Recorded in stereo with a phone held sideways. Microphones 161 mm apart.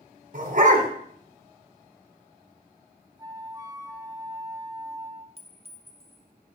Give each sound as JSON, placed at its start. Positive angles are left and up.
{"t": 0.3, "sound": "a dog barking", "side_deg": -55, "distance_m": 1.8}
{"t": 3.2, "sound": "a flute", "side_deg": -25, "distance_m": 0.7}
{"t": 5.4, "sound": "a clink", "side_deg": -40, "distance_m": 0.9}